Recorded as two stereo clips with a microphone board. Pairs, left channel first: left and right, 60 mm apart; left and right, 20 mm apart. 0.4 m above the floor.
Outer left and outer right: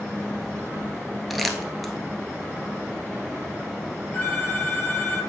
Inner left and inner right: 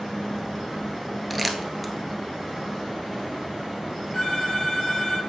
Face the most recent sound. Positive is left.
turn(degrees=45)  # may be behind; listen again after turning